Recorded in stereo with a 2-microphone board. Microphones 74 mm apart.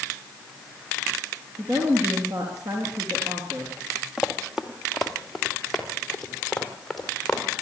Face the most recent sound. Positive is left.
turn(degrees=10)  # may be behind; listen again after turning